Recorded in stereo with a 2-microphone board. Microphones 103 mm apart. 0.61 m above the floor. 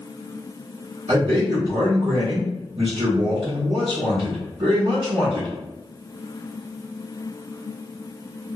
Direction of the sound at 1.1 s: 65° right (ahead or behind).